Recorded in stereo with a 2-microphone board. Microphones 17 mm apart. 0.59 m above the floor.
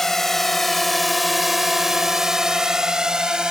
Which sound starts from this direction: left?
A drone, at 0.0 s.